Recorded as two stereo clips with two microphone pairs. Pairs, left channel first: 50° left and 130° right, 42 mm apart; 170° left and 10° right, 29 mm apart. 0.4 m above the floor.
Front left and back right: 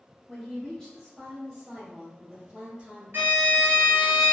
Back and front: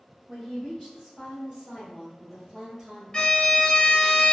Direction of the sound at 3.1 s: 125° right.